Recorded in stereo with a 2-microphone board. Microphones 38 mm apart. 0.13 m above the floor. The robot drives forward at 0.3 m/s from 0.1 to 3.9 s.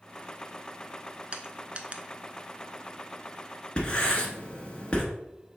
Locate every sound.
1.3 s crushing: 30° right (ahead or behind), 0.6 m; by 2.0 s 35° right (ahead or behind), 0.5 m
3.8 s writing: 25° left (ahead or behind), 1.0 m